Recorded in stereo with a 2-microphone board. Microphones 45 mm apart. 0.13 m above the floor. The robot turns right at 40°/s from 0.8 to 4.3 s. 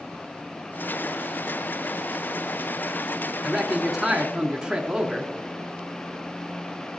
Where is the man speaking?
175° left, 1.2 m; by 5.3 s 150° right, 1.2 m.